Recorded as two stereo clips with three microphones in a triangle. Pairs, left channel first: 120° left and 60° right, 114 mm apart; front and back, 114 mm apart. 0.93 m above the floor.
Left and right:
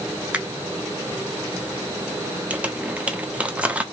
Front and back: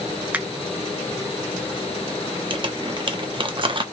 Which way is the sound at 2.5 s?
140° right.